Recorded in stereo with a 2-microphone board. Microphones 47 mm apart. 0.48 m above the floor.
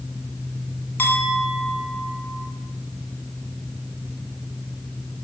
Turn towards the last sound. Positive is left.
turn(degrees=45)  # may be behind; listen again after turning